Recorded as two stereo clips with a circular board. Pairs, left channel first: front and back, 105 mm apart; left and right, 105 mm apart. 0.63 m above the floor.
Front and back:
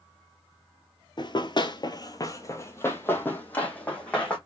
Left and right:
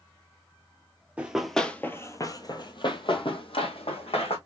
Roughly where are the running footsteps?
Ahead.